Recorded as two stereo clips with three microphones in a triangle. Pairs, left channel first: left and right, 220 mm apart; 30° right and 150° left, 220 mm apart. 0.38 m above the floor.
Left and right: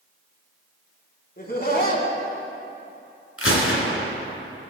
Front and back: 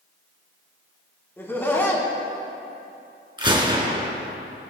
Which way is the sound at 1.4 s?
50° left.